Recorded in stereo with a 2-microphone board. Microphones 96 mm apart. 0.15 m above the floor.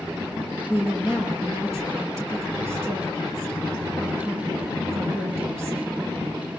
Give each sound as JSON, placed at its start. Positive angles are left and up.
{"t": 0.7, "sound": "a woman speaking", "side_deg": -30, "distance_m": 3.5}